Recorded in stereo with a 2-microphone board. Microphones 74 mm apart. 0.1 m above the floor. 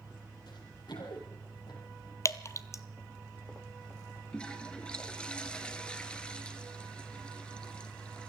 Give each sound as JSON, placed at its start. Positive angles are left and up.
{"t": 0.5, "sound": "running footsteps", "side_deg": 75, "distance_m": 6.0}
{"t": 2.2, "sound": "dripping", "side_deg": 40, "distance_m": 0.6}
{"t": 4.3, "sound": "a toilet flushing", "side_deg": 15, "distance_m": 1.4}